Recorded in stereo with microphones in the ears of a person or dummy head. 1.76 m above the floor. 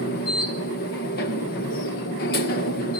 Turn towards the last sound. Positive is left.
turn(degrees=50)  # may be behind; listen again after turning